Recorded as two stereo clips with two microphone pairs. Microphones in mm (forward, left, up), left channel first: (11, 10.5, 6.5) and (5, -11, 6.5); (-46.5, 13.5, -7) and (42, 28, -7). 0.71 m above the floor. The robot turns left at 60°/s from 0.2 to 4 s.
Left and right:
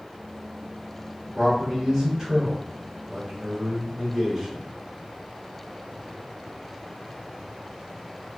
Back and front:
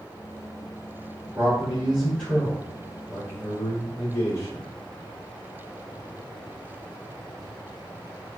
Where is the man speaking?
30° right, 1.3 m; by 4.7 s 170° left, 1.3 m.